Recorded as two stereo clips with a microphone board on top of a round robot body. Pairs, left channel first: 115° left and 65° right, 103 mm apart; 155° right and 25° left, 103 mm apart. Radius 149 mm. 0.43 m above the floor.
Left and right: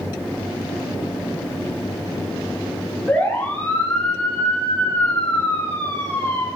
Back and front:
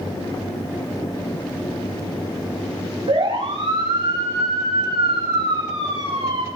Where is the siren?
35° left, 10 m; by 6.5 s 45° left, 8.5 m.